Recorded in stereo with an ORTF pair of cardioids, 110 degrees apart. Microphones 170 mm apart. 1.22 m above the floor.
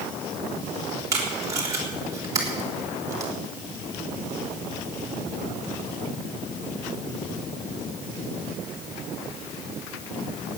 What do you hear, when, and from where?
1.1 s tape being pulled: 20° right, 3.5 m